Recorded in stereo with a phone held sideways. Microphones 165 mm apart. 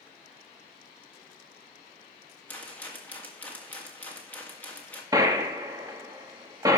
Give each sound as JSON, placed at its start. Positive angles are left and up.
{"t": 2.5, "sound": "a rattle", "side_deg": 10, "distance_m": 1.8}
{"t": 5.1, "sound": "a gunshot", "side_deg": -20, "distance_m": 1.3}